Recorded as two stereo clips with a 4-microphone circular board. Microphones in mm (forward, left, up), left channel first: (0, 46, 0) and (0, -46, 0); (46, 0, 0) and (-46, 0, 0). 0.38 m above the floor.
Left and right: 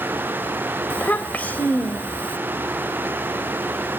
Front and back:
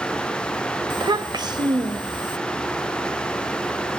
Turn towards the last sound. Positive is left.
turn(degrees=160)